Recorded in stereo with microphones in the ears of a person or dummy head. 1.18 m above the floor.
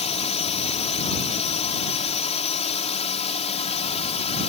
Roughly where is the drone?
Left.